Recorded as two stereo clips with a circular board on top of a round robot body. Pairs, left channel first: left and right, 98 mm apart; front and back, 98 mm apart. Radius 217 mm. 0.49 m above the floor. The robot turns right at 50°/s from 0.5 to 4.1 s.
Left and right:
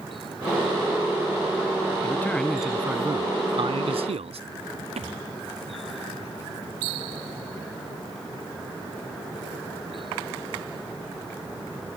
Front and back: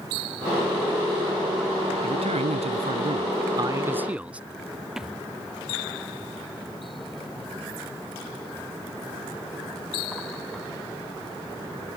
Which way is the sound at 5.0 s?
95° right.